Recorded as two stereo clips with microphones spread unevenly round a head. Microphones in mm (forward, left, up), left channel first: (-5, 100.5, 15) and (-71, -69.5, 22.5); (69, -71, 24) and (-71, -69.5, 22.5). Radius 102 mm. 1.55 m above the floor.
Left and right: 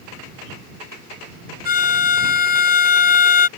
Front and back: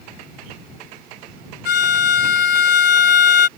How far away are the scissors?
No scissors in this recording.